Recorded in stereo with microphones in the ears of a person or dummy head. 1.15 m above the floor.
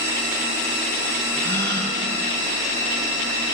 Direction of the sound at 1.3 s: 15° left (ahead or behind).